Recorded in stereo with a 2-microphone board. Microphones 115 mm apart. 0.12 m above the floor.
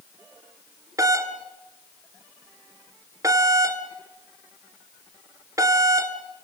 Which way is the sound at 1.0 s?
25° right (ahead or behind).